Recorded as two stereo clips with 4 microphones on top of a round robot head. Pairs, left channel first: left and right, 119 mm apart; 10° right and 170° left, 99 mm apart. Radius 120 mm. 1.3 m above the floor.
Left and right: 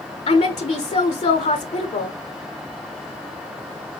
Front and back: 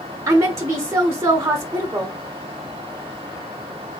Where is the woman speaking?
110° left, 0.9 m.